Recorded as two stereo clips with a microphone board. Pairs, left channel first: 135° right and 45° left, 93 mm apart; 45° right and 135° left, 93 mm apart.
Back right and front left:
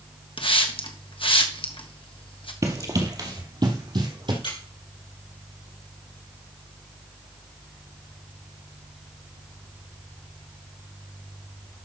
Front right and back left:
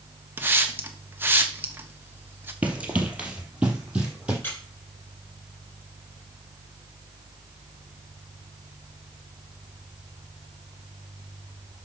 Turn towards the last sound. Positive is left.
turn(degrees=-110)